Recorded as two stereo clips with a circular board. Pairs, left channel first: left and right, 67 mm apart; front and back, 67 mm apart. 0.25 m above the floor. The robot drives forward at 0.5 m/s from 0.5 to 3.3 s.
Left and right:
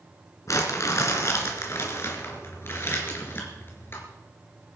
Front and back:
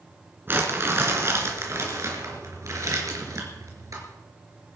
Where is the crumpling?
125° left, 2.5 m; by 4.0 s 145° left, 3.5 m.